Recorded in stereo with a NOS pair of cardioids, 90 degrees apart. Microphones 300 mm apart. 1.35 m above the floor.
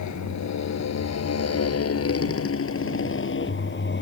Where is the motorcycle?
65° left; by 4.0 s 35° left.